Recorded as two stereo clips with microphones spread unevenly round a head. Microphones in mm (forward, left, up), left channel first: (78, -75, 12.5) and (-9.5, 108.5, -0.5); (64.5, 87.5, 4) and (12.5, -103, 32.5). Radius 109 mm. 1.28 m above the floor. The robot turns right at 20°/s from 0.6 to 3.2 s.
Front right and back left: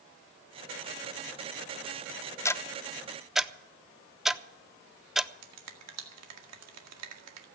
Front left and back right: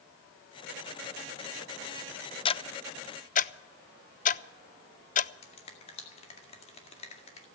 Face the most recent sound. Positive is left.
turn(degrees=140)